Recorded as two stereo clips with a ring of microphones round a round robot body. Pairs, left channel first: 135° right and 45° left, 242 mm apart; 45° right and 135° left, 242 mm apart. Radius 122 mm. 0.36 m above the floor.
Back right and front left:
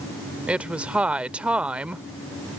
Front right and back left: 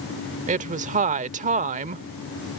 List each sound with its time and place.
0.5 s a woman speaking: 125° left